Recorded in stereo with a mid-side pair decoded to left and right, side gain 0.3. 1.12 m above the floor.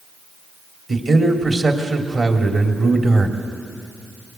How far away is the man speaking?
About 3 m.